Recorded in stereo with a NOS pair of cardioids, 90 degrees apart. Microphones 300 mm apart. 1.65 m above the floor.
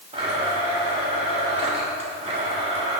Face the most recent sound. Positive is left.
turn(degrees=-20)